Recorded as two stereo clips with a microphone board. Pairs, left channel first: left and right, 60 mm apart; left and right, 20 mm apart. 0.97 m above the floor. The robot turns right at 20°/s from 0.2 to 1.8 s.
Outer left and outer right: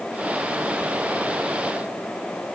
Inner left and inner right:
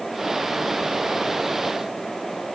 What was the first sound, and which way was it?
Only background noise.